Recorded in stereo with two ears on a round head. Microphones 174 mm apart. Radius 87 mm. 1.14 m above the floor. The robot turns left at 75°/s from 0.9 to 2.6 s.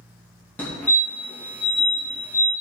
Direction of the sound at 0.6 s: 10° left (ahead or behind).